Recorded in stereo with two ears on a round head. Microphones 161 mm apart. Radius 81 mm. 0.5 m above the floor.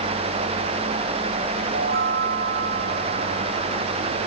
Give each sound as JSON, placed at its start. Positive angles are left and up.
{"t": 1.7, "sound": "a chime", "side_deg": -60}